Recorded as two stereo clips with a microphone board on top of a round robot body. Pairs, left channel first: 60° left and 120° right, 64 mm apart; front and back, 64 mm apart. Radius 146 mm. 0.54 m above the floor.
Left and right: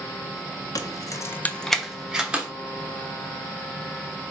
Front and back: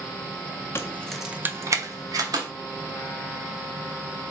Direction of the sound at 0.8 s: 50° left.